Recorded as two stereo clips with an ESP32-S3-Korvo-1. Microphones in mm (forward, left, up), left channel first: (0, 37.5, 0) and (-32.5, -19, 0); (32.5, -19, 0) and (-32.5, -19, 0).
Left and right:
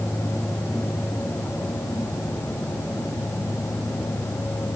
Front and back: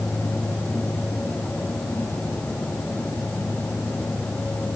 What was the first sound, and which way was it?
Only background noise.